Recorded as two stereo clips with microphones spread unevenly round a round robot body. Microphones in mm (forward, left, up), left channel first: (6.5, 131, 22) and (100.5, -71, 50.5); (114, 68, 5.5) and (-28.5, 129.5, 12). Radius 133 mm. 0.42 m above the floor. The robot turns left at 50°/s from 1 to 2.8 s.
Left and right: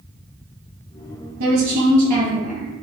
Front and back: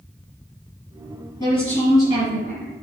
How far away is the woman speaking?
About 3 m.